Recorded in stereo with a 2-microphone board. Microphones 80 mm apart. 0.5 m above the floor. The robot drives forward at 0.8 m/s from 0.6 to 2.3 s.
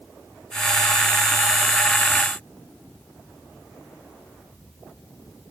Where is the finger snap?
I don't hear a finger snap.